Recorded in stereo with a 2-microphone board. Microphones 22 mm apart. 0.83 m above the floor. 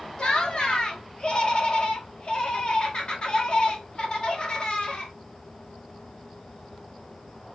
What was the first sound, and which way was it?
Laughter, 35° left (ahead or behind).